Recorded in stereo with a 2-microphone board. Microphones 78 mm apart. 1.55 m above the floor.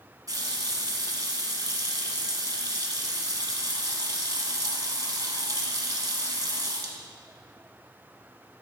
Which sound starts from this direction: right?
A running tap, at 0.3 s.